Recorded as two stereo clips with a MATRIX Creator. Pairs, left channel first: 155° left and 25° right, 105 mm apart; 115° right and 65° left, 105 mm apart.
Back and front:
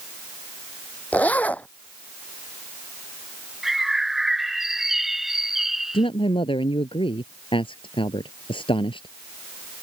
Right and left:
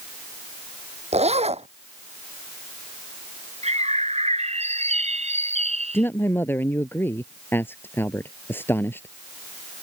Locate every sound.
1.1 s a zipper: 80° left
3.6 s a bird: 65° left
5.9 s a man speaking: straight behind